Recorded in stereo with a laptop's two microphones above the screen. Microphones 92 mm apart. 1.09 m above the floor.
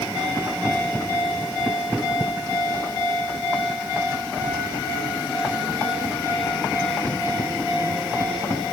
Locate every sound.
Only background noise.